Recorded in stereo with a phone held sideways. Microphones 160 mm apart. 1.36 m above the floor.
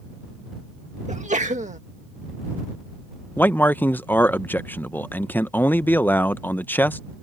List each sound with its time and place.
1.1 s a sneeze: 50° right (ahead or behind)
3.4 s a man speaking: 10° left (ahead or behind)